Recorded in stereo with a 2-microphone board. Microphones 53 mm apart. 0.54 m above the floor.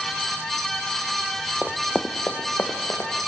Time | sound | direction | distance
1.6 | running footsteps | 25° right (ahead or behind) | 0.7 m